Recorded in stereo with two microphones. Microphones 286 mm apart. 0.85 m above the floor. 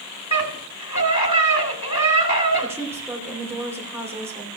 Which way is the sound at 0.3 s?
75° left (ahead or behind).